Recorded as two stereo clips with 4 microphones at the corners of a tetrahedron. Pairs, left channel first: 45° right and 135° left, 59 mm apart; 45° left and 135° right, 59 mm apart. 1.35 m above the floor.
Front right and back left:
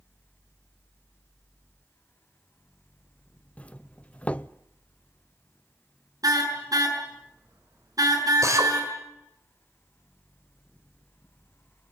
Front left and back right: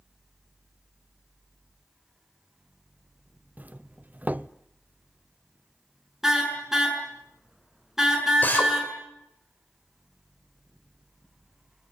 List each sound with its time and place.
3.6 s a doorbell: 95° right, 0.7 m
6.2 s a car horn: 145° left, 6.5 m
8.4 s a drill: 105° left, 5.5 m